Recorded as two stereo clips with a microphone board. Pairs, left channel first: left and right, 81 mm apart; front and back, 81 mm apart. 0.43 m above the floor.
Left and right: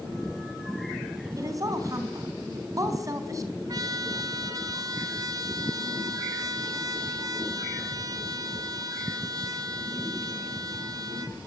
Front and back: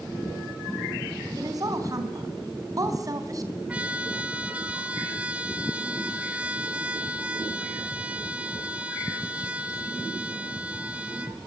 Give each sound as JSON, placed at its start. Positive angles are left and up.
{"t": 1.4, "sound": "a woman speaking", "azimuth_deg": -135, "distance_m": 4.0}
{"t": 3.7, "sound": "a trumpet", "azimuth_deg": -110, "distance_m": 2.0}